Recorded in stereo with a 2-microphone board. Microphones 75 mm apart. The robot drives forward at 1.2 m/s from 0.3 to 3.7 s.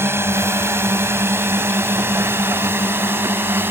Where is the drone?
35° right (ahead or behind); by 3.7 s 30° right (ahead or behind).